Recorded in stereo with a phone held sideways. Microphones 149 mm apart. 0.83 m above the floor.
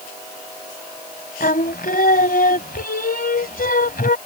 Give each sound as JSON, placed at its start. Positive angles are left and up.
{"t": 1.4, "sound": "singing", "side_deg": 75}